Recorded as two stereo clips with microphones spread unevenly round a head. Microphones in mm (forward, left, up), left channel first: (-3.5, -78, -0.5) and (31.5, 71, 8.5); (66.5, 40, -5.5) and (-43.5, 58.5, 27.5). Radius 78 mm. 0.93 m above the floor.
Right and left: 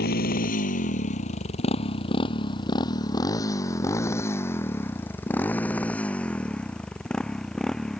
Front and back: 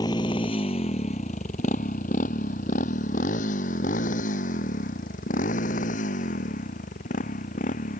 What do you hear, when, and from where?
0.0 s a motorcycle: 75° right; by 8.0 s 15° right